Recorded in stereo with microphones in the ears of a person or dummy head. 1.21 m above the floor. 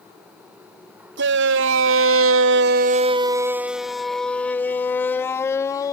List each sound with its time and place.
1.2 s a shout: 55° right (ahead or behind); by 5.9 s 20° left (ahead or behind)